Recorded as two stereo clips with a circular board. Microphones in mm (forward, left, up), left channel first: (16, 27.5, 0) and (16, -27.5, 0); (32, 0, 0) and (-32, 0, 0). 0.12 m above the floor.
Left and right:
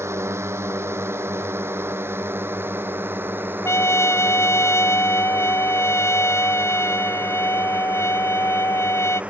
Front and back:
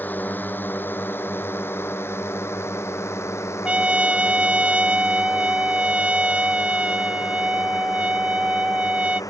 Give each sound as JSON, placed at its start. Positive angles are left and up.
{"t": 0.0, "sound": "a drone", "azimuth_deg": -60}
{"t": 3.6, "sound": "a trumpet", "azimuth_deg": 110}